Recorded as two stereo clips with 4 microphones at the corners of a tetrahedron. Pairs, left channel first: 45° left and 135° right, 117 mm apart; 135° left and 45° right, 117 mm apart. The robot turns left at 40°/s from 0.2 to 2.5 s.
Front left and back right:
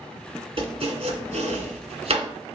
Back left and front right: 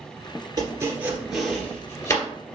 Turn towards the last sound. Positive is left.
turn(degrees=180)